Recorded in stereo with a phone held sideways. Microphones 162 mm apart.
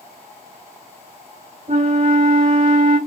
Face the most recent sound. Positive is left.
turn(degrees=-45)  # may be behind; listen again after turning